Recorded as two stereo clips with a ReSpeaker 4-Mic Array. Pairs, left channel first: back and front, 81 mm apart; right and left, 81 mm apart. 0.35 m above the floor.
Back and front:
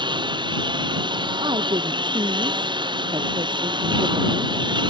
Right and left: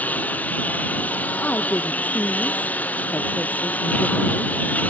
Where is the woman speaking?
20° right.